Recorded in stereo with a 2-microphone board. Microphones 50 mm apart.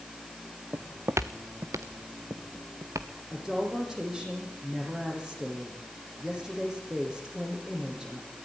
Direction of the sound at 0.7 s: 55° right (ahead or behind).